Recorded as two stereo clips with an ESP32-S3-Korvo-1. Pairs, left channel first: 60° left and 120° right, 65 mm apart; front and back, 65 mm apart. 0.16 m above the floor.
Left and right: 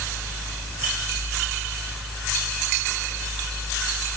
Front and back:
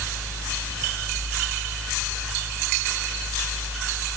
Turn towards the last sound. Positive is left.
No sound to turn to.